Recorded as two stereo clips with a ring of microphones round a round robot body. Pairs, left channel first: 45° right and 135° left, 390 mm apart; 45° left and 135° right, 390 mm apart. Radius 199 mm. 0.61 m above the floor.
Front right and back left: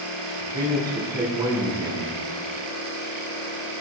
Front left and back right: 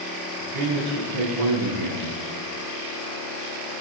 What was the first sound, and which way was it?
A man speaking, 145° right.